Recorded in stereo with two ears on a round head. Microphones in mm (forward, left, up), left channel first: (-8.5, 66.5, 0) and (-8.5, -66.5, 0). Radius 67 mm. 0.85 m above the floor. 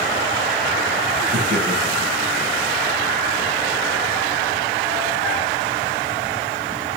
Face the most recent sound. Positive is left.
turn(degrees=-45)  # may be behind; listen again after turning